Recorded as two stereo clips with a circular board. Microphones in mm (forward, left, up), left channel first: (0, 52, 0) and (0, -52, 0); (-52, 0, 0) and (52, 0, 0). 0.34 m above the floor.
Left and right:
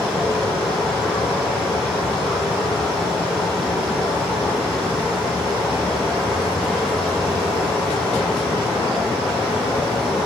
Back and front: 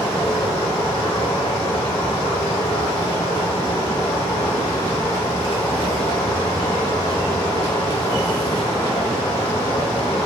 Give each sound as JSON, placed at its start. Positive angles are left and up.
{"t": 0.0, "sound": "running water", "azimuth_deg": 180, "distance_m": 4.0}